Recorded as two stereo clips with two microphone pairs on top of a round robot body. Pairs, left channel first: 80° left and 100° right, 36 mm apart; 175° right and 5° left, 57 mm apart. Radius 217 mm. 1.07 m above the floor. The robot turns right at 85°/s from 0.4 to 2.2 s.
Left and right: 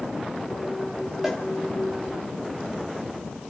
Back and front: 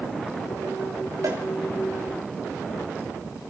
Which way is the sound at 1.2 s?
20° right.